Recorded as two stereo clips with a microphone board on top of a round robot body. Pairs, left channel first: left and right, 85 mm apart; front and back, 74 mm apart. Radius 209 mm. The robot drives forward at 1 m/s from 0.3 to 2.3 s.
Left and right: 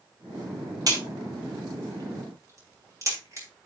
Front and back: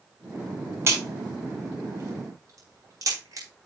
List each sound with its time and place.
0.9 s a crack: 125° right, 4 m; by 3.5 s 140° right, 5 m